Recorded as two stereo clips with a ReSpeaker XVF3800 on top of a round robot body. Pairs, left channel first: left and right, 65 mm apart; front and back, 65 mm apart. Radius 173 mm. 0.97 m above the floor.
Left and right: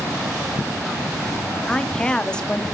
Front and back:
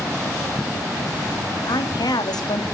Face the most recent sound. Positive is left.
turn(degrees=15)